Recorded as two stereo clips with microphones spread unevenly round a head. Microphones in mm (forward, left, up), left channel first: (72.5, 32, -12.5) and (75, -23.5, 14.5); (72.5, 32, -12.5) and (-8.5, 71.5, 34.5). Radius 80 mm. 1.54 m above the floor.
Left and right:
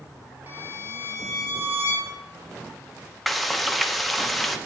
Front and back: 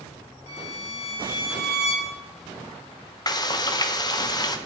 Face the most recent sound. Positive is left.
turn(degrees=10)